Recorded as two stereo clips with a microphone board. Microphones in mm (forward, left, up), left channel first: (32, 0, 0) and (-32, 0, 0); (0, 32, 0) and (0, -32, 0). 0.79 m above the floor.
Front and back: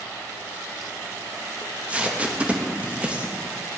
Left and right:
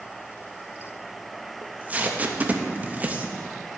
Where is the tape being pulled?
130° right, 0.7 m.